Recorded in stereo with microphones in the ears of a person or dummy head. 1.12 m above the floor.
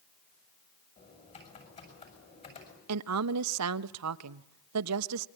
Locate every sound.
1.0 s typing on a keyboard: 35° left (ahead or behind), 6.5 m
2.9 s a woman speaking: 75° right (ahead or behind), 1.0 m